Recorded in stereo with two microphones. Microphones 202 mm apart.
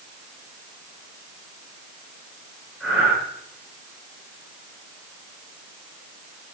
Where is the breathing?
10° right (ahead or behind), 6.5 m.